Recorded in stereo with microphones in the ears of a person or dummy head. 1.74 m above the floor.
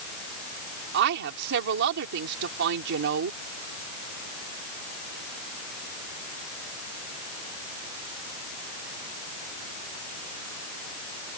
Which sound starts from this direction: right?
A woman speaking, at 0.9 s.